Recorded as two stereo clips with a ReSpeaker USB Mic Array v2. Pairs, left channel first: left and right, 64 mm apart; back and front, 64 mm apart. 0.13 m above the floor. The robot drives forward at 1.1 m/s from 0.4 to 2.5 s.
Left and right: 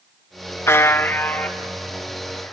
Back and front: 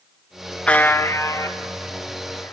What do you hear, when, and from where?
0.7 s a buzzer: 110° left, 0.6 m; by 2.5 s 170° left, 2.5 m